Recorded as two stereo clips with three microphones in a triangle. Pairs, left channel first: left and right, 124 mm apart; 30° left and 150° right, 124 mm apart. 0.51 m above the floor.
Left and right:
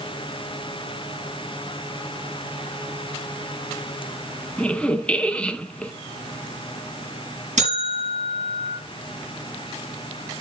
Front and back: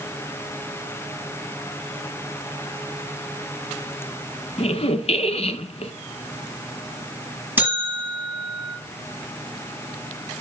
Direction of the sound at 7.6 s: 75° right.